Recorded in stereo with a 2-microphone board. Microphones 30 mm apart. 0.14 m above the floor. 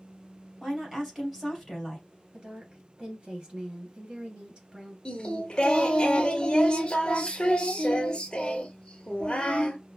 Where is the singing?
30° left (ahead or behind), 0.8 m.